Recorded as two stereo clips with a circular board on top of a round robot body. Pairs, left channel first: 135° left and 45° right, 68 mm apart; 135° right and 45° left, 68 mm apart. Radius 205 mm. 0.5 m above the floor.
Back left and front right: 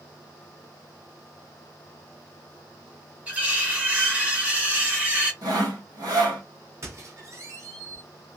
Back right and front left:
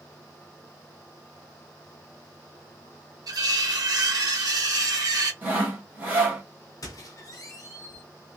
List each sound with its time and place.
3.3 s cutlery clinking: 20° left, 1.2 m
5.4 s sawing: 20° right, 1.5 m
6.8 s a squeak: 95° right, 0.6 m